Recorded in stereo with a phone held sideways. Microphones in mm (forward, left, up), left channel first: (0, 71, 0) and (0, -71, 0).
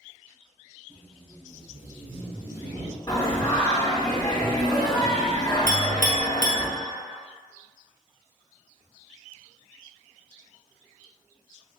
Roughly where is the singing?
Left.